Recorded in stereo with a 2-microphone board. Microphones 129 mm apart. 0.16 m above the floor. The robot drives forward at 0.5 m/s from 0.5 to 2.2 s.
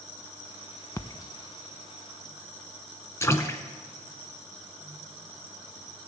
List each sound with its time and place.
1.0 s a splash: 25° left (ahead or behind), 0.5 m; by 3.6 s 20° left (ahead or behind), 0.6 m